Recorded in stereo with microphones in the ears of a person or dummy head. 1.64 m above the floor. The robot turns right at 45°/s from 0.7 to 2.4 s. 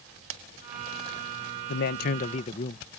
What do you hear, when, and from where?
1.7 s a man speaking: 110° left; by 2.9 s 140° left